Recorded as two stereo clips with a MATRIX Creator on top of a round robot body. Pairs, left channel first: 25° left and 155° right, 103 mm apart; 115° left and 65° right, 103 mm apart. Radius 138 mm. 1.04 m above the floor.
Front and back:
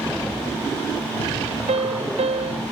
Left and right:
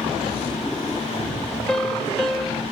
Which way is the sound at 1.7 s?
160° right.